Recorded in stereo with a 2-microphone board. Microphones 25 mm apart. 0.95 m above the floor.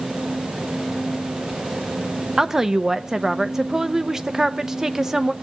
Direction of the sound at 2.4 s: 20° right (ahead or behind).